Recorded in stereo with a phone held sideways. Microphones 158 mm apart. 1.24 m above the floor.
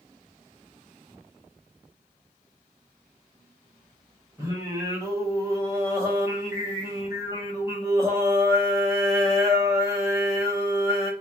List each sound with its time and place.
4.4 s singing: 20° right (ahead or behind), 1.0 m